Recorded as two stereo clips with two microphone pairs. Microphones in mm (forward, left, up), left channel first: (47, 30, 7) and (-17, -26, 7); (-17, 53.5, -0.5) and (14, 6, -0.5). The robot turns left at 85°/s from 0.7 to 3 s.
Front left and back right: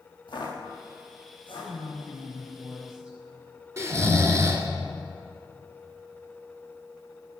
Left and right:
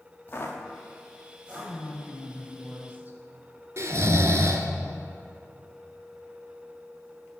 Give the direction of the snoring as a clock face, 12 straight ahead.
3 o'clock.